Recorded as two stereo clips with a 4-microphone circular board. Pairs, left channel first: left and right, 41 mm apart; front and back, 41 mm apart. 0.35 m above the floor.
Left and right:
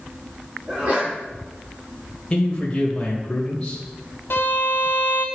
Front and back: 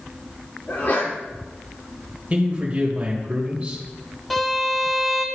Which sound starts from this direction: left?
A violin, at 4.3 s.